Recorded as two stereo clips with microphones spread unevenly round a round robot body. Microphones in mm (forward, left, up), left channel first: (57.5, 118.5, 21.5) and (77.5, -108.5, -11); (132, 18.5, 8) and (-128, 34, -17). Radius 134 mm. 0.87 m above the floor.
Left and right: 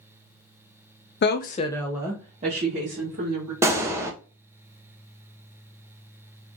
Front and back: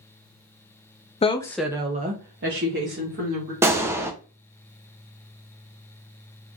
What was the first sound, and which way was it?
A woman speaking, 65° left.